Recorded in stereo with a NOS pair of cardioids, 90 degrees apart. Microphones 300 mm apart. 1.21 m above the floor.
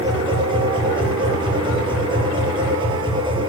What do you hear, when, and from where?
0.0 s a machine running: 15° right, 6.5 m